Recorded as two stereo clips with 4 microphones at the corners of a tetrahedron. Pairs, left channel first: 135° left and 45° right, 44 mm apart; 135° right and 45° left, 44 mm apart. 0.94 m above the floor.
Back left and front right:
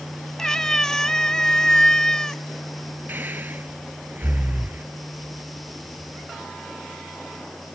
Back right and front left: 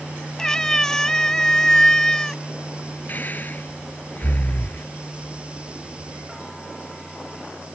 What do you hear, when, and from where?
0.4 s a cat meowing: 175° right
3.1 s breathing: 85° right